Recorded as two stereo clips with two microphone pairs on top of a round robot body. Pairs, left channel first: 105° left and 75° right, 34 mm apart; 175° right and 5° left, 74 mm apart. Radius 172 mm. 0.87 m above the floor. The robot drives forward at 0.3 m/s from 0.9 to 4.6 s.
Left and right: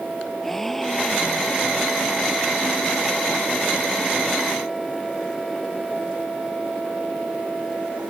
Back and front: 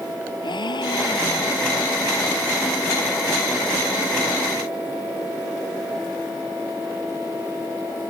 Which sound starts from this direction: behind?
A gasp, at 0.4 s.